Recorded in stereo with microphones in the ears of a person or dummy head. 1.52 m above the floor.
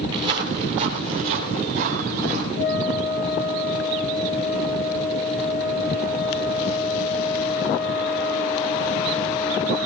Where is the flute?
65° left (ahead or behind), 6.5 m.